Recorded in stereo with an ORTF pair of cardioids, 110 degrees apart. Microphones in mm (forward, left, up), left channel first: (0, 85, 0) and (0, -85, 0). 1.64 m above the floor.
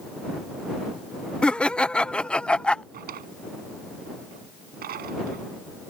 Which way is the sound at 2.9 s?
60° right.